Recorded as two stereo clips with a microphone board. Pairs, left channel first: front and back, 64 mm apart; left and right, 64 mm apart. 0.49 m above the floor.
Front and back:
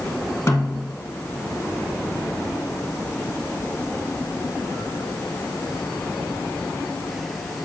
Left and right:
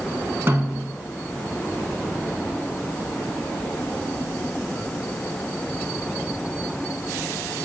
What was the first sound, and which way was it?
A snare drum, 40° right.